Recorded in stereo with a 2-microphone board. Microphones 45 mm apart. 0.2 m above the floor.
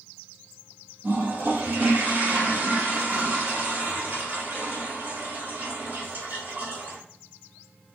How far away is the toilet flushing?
About 2 m.